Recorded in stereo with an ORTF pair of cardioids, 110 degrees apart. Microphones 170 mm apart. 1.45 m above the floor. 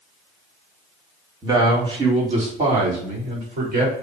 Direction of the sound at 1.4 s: 25° right.